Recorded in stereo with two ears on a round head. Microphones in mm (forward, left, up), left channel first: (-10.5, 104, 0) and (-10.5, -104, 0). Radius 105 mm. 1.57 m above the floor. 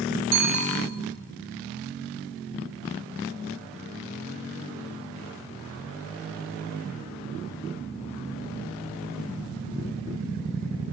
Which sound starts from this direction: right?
A bicycle bell, at 0.3 s.